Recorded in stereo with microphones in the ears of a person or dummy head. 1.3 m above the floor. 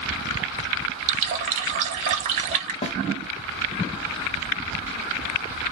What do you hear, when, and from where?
1.1 s a running tap: 40° right (ahead or behind), 0.8 m
2.8 s a snare drum: 35° left (ahead or behind), 0.7 m